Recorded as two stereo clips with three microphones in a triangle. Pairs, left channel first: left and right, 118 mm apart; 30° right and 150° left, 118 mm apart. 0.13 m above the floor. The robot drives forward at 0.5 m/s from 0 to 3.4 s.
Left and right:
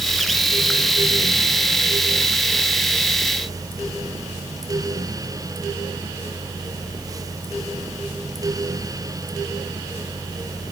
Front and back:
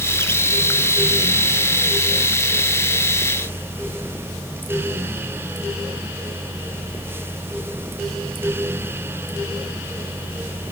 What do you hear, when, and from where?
Only background noise.